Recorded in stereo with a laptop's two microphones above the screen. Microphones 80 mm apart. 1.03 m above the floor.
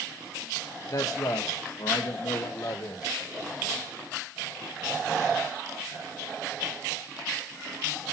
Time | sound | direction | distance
0.9 | a man speaking | 55° left (ahead or behind) | 1.1 m